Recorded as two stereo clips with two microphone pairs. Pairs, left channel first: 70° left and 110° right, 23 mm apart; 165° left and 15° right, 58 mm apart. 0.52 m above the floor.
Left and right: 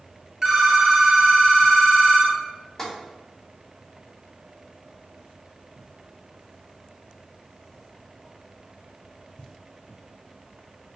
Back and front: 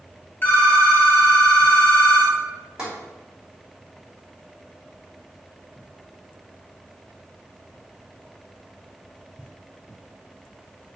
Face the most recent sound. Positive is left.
turn(degrees=45)